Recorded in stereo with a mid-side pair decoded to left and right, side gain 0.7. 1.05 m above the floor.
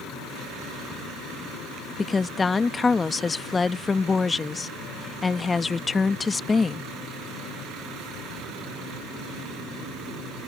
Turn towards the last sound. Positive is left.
turn(degrees=20)